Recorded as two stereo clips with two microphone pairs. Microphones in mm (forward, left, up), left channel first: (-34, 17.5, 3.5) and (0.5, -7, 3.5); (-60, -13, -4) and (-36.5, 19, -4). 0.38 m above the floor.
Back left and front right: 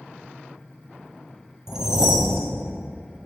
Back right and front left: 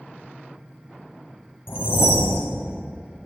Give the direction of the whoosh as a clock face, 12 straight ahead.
4 o'clock.